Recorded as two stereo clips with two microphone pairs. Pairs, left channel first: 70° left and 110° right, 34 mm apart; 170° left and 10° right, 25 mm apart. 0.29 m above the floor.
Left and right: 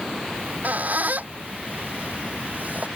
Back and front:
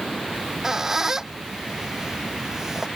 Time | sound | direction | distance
0.3 | a squeak | 80° right | ?